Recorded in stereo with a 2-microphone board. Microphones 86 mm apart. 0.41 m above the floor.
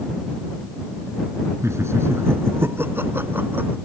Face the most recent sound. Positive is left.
turn(degrees=-20)  # may be behind; listen again after turning